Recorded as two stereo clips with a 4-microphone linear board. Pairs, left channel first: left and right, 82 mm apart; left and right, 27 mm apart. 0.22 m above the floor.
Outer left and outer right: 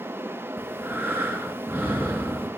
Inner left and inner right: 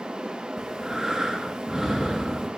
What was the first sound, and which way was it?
Breathing, 25° right (ahead or behind).